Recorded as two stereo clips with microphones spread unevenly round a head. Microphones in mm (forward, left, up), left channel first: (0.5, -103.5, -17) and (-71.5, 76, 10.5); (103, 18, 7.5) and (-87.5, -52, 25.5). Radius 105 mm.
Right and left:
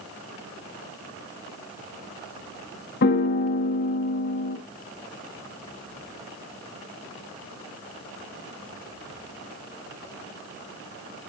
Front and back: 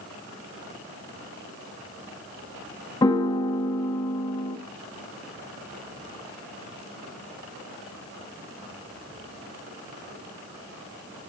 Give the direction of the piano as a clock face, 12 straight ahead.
2 o'clock.